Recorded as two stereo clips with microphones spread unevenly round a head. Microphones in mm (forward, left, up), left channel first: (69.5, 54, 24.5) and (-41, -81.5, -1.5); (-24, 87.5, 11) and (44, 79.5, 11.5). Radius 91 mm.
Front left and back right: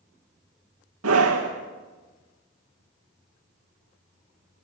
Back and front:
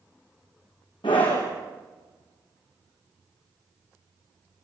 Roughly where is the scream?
Behind right.